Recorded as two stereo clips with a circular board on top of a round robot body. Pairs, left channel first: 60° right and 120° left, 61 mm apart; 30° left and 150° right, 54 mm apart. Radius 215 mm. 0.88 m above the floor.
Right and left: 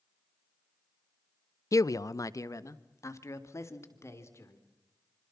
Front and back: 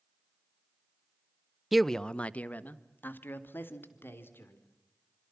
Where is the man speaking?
65° right, 0.8 m; by 4.6 s 15° right, 4 m.